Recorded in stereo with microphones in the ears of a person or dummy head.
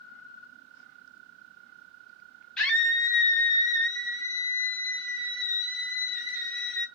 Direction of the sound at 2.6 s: 5° left (ahead or behind).